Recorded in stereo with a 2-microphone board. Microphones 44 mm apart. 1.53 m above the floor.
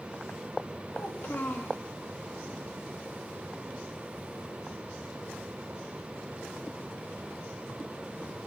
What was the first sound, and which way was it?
A child speaking, 45° left (ahead or behind).